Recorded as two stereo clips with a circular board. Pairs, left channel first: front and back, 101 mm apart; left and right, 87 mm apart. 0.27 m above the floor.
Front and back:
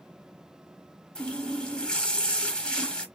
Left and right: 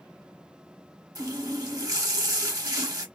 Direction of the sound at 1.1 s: 75° right.